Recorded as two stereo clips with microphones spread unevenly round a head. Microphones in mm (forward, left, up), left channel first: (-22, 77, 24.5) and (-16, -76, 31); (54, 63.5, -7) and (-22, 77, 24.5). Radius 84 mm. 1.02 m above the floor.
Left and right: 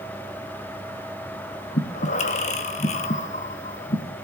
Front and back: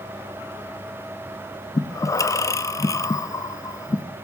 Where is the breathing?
40° left, 0.7 m.